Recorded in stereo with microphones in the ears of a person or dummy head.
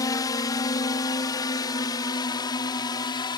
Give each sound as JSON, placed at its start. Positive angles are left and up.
{"t": 0.0, "sound": "a drone", "side_deg": 20}